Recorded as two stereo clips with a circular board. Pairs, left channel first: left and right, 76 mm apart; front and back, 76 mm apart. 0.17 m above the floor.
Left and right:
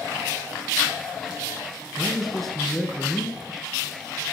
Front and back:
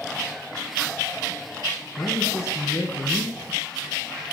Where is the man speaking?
5° left, 2 m.